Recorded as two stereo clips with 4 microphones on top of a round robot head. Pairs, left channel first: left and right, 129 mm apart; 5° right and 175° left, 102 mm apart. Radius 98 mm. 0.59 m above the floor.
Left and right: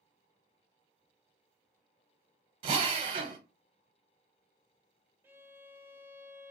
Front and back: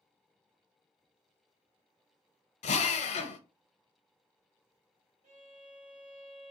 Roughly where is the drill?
Ahead right.